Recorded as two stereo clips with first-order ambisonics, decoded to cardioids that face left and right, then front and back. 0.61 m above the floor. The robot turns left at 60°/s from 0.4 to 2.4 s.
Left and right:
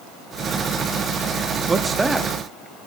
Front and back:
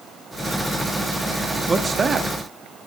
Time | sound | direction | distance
1.7 | a man speaking | 130° right | 0.5 m